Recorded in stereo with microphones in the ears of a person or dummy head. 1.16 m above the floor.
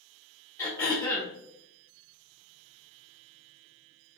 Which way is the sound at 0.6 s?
15° left (ahead or behind).